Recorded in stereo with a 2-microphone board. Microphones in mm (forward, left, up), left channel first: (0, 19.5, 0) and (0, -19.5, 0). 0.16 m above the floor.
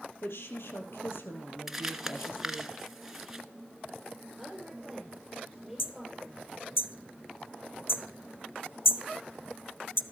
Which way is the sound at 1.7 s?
5° right (ahead or behind).